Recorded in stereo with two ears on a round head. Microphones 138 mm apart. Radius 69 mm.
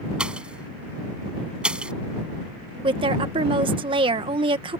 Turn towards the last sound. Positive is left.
turn(degrees=-35)  # may be behind; listen again after turning